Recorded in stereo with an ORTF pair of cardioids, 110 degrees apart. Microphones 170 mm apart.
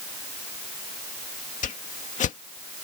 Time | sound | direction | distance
1.6 | a whoosh | 45° left | ?